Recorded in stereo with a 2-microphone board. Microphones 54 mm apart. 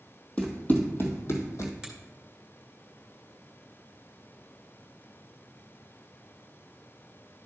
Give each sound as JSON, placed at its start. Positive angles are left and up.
{"t": 0.4, "sound": "running footsteps", "side_deg": 20, "distance_m": 2.0}
{"t": 1.8, "sound": "a finger snap", "side_deg": -10, "distance_m": 2.5}